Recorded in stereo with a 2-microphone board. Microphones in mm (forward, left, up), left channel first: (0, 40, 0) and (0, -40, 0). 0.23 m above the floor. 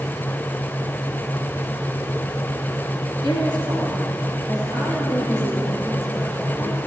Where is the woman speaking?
70° left (ahead or behind), 3.5 m; by 6.8 s 45° left (ahead or behind), 5.5 m.